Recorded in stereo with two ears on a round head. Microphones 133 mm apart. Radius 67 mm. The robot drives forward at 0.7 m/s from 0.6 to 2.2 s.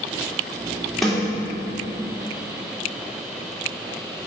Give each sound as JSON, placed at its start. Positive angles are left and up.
{"t": 1.0, "sound": "a snare drum", "side_deg": 0, "distance_m": 3.0}